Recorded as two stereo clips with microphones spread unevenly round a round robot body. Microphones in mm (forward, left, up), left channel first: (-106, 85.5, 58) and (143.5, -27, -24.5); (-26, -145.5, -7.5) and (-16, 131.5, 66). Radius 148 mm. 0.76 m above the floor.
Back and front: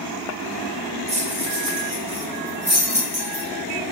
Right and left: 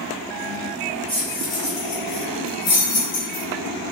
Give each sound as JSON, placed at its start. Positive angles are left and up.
{"t": 1.1, "sound": "keys jangling", "azimuth_deg": -5, "distance_m": 1.5}